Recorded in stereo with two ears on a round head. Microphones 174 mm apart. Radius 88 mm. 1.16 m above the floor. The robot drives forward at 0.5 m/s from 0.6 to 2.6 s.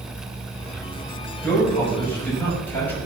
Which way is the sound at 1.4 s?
10° left (ahead or behind).